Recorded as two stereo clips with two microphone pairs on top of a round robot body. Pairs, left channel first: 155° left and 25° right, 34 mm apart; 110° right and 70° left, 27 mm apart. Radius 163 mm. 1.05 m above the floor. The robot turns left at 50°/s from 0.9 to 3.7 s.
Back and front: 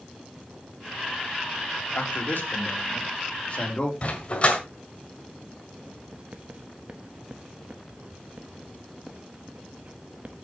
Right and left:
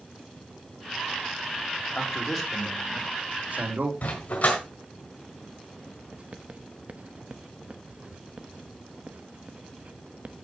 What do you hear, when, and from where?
1.9 s a man speaking: 175° right, 3.5 m; by 3.9 s 95° left, 3.5 m
4.0 s a dog barking: 145° right, 1.5 m
6.1 s writing: 25° left, 0.9 m